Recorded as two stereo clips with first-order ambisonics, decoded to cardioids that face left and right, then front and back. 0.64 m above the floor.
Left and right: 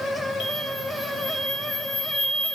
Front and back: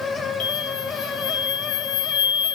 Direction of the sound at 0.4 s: 5° right.